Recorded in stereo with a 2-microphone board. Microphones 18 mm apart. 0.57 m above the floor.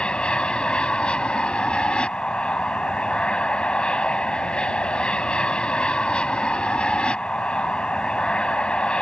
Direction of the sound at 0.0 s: 70° left (ahead or behind).